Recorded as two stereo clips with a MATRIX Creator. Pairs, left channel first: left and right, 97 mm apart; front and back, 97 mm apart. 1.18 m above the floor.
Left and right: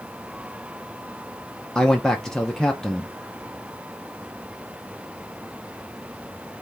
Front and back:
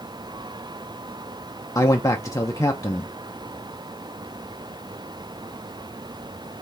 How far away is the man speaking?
About 0.7 m.